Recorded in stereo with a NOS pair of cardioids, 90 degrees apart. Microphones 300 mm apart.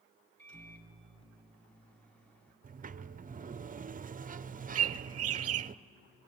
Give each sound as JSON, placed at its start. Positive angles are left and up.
{"t": 0.4, "sound": "a microwave", "azimuth_deg": 5, "distance_m": 3.0}
{"t": 2.6, "sound": "a sliding door", "azimuth_deg": -30, "distance_m": 0.5}
{"t": 4.8, "sound": "a bird", "azimuth_deg": -55, "distance_m": 0.5}